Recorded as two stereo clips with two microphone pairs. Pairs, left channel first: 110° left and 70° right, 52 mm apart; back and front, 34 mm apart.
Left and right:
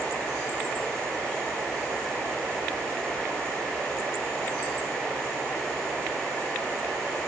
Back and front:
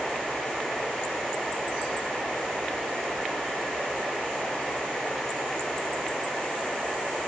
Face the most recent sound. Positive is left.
No sound to turn to.